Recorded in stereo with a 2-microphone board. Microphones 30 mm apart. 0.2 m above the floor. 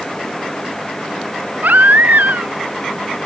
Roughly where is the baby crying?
Right.